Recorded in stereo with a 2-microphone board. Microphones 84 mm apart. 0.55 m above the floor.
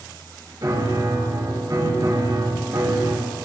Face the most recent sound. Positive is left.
turn(degrees=-50)  # may be behind; listen again after turning